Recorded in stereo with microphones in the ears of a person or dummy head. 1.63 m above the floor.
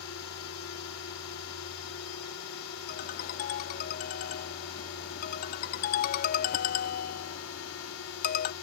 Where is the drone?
80° left.